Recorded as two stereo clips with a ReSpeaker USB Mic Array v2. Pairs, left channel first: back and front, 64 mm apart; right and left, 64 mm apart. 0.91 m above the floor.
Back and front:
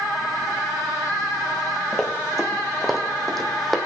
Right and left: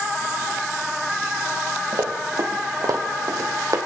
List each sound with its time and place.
1.9 s running footsteps: 95° left, 2.5 m